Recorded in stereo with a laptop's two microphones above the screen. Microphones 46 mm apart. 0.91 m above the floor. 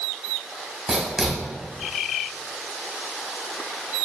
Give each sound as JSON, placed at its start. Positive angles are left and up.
{"t": 0.9, "sound": "writing", "side_deg": -10, "distance_m": 1.9}